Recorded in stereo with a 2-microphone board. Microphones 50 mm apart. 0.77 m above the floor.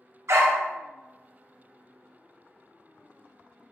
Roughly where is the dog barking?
Right.